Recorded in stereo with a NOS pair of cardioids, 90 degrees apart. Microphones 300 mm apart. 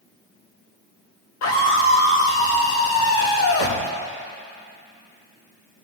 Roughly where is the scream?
Ahead left.